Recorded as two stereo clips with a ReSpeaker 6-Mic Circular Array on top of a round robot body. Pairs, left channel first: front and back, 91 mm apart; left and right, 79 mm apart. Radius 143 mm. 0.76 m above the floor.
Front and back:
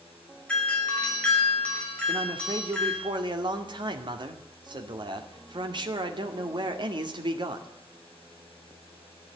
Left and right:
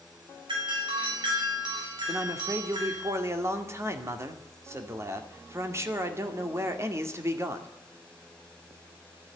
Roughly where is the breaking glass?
No breaking glass in this recording.